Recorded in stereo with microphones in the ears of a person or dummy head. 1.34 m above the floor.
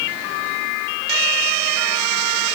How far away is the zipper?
No zipper in this recording.